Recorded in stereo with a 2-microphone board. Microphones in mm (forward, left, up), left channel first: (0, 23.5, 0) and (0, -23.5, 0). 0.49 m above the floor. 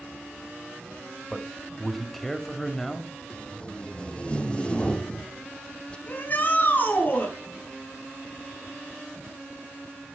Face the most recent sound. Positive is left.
turn(degrees=40)  # may be behind; listen again after turning